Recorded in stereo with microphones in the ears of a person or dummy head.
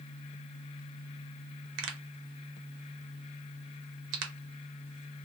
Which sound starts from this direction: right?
A pop, at 1.8 s.